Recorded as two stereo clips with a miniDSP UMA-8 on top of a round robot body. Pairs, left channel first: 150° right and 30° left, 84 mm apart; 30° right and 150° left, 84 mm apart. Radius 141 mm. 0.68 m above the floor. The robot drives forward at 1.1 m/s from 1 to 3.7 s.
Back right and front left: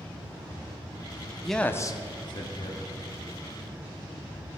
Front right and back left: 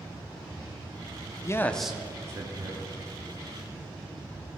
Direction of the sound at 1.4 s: 55° right.